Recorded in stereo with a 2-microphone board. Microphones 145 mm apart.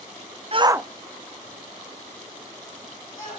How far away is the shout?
About 0.6 m.